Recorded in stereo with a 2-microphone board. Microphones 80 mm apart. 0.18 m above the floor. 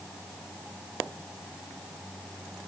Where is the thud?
No thud in this recording.